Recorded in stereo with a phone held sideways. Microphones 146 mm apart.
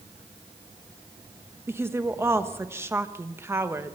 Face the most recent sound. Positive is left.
turn(degrees=-15)  # may be behind; listen again after turning